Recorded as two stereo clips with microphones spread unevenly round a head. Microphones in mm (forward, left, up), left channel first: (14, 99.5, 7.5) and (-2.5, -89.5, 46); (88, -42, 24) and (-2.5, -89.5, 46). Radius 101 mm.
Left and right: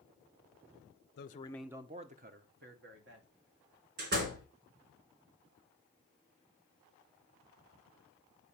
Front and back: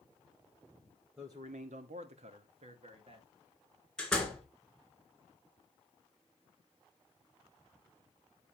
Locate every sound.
1.2 s a man speaking: 125° left, 0.6 m; by 3.3 s 125° right, 2 m
4.0 s a door slam: 60° right, 3 m